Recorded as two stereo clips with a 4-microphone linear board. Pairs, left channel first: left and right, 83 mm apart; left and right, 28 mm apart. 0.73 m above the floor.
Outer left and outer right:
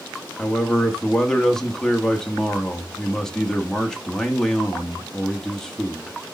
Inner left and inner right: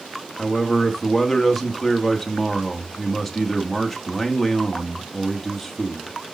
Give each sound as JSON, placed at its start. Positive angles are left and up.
{"t": 0.4, "sound": "a man speaking", "side_deg": 5, "distance_m": 1.1}